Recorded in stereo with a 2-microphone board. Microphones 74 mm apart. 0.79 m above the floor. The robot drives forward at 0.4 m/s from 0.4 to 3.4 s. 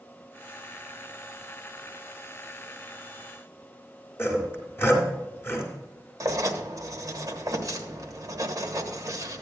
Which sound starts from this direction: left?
Sawing, at 4.2 s.